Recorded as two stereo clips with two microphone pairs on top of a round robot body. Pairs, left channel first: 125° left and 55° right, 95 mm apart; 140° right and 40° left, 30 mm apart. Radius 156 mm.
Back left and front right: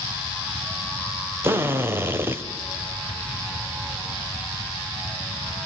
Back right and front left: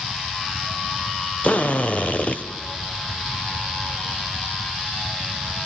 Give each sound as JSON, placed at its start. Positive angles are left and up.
{"t": 1.4, "sound": "a drill", "azimuth_deg": -115, "distance_m": 1.9}